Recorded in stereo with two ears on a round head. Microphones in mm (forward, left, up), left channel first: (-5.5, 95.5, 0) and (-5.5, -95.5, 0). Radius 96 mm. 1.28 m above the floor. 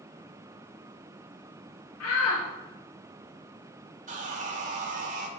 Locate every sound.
2.0 s a shout: 80° left, 1.5 m
4.1 s sawing: 35° right (ahead or behind), 1.5 m